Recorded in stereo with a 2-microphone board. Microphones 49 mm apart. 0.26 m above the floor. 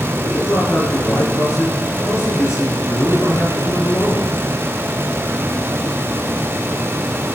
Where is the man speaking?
70° left (ahead or behind), 3.5 m.